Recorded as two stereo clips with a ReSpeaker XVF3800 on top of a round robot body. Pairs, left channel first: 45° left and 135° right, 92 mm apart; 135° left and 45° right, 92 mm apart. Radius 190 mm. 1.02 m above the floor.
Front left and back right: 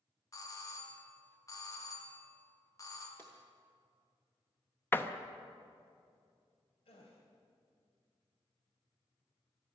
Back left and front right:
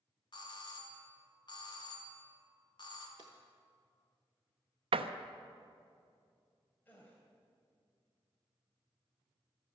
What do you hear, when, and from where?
0.3 s a doorbell: 100° left, 2 m
3.2 s a drawer: 115° left, 0.6 m
4.9 s a door slam: 25° right, 0.7 m
6.8 s a gasp: 65° left, 2 m